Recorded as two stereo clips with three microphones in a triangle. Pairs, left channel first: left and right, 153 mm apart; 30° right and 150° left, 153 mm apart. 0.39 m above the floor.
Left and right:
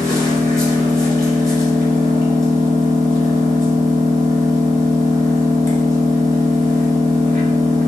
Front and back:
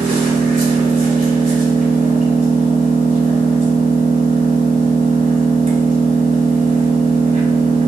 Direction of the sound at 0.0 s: 150° left.